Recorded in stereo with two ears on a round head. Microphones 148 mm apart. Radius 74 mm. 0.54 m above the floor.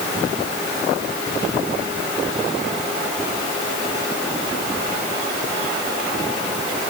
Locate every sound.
Only background noise.